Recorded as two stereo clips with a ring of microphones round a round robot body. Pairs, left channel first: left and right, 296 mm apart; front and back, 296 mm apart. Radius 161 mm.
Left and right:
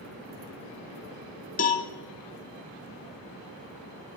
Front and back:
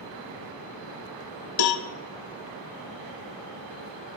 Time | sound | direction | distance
1.6 | a cowbell | 25° left | 0.8 m